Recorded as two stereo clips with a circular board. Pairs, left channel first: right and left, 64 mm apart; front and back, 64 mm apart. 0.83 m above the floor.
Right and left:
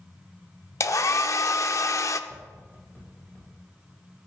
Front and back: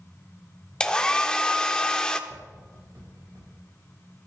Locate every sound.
0.8 s a hair dryer: 75° right, 0.6 m
2.3 s tapping: 155° right, 6 m